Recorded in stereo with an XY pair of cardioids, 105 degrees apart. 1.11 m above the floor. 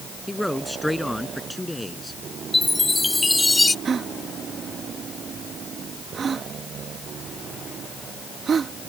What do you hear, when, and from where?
0.3 s a man speaking: 5° left; by 2.2 s 10° left
2.5 s a chime: 15° left
3.9 s a gasp: 45° right